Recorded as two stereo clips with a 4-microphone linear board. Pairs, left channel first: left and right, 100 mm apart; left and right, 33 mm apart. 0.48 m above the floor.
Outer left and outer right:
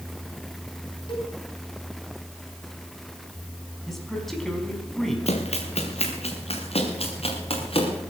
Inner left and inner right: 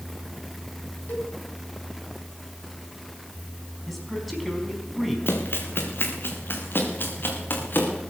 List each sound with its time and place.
1.1 s a cowbell: 55° left (ahead or behind), 3.5 m
3.9 s a man speaking: centre (ahead or behind), 4.5 m
5.3 s running footsteps: 80° left, 3 m; by 8.0 s 60° left (ahead or behind), 5 m